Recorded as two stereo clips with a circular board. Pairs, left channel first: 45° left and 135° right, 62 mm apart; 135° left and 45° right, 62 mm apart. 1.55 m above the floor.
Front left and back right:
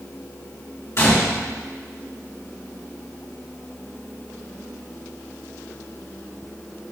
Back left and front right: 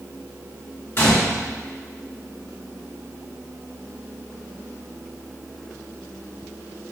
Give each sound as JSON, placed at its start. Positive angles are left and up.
{"t": 1.0, "sound": "a gunshot", "azimuth_deg": 85, "distance_m": 2.5}